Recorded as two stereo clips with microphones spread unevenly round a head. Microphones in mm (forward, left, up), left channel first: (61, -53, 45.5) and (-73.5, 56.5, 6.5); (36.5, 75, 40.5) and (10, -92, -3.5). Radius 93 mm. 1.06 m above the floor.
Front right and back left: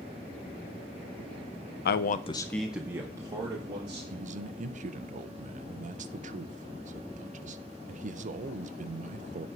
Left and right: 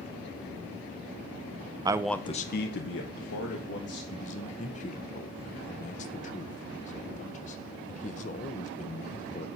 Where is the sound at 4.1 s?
135° left, 0.6 m.